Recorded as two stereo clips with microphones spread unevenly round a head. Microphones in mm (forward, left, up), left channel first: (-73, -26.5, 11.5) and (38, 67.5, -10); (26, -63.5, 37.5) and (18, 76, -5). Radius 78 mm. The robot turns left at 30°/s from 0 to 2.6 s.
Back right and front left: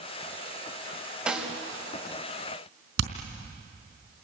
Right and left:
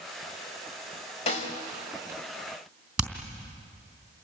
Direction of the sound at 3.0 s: 5° left.